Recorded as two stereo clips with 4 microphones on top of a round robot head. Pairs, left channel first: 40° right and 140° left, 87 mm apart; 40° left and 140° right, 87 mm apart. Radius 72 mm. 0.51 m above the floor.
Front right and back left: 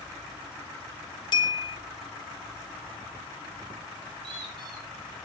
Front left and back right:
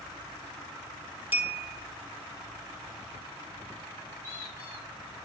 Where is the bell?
70° right, 2 m.